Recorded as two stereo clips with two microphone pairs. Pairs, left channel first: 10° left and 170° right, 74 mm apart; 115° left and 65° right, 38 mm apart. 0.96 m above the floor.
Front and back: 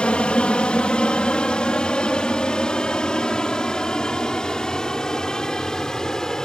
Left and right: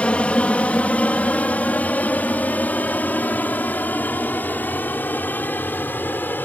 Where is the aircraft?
75° left; by 6.5 s 90° left.